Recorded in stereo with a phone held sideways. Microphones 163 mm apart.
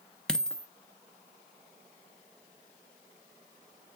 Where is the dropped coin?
5° left (ahead or behind), 0.6 m.